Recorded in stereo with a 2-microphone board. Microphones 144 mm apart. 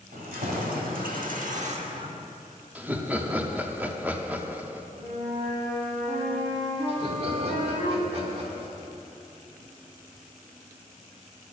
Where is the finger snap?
No finger snap in this recording.